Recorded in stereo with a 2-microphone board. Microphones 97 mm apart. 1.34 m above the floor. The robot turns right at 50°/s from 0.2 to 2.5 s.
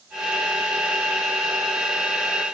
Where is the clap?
No clap in this recording.